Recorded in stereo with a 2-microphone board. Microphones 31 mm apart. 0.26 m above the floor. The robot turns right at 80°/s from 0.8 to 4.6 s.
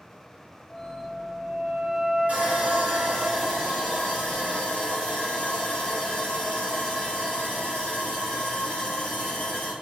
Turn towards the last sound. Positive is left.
turn(degrees=100)